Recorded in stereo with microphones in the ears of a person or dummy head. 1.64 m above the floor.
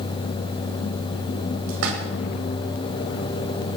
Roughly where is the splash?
Right.